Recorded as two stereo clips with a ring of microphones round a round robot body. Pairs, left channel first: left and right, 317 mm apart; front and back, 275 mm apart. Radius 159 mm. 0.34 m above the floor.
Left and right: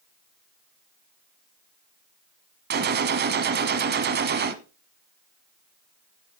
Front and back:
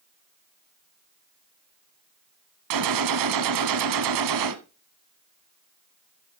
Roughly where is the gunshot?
Behind right.